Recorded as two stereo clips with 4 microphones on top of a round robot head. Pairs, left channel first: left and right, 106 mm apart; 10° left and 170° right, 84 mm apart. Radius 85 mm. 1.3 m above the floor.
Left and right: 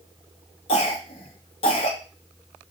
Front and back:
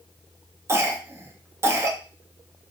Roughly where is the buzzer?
No buzzer in this recording.